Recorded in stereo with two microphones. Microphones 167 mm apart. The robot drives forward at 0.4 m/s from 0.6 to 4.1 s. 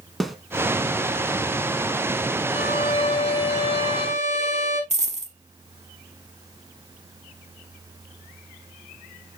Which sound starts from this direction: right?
A dropped coin, at 4.9 s.